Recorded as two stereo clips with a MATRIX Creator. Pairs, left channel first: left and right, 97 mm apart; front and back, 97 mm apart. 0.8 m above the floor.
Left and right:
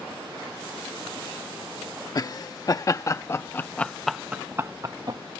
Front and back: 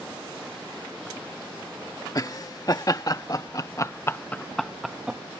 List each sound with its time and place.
2.1 s laughter: 45° left; by 5.2 s 105° right